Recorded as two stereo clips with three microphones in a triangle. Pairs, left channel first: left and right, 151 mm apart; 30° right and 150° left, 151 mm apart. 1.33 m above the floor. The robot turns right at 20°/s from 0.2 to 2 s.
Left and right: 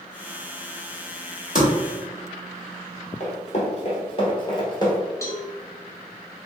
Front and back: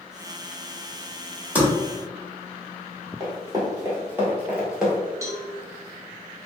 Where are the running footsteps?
100° left, 1.9 m; by 5.0 s 60° left, 1.4 m.